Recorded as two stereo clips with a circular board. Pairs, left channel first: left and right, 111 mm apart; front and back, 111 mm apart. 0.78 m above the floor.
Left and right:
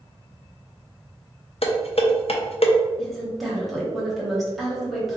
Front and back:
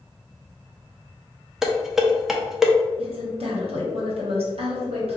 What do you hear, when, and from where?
1.6 s dishes clattering: 95° left, 0.6 m
3.0 s a woman speaking: straight behind, 1.3 m